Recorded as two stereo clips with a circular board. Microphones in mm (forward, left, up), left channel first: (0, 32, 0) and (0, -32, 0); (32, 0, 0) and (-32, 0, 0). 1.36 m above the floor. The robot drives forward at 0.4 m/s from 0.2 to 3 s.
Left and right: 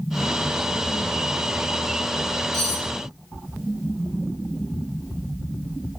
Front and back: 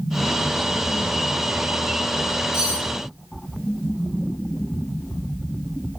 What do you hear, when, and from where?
2.5 s cutlery clinking: 110° right, 2.5 m